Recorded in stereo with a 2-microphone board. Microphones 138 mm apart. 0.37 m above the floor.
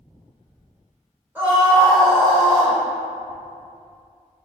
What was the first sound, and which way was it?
A scream, 15° right (ahead or behind).